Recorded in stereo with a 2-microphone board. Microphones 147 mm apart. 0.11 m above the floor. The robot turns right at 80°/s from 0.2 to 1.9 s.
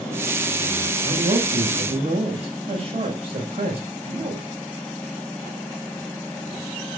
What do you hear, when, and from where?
1.0 s a man speaking: 115° right, 7 m; by 4.5 s 45° right, 7 m